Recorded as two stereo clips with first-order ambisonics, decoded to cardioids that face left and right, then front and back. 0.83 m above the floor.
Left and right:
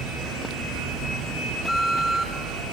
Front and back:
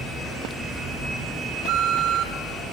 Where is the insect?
100° right, 6 m.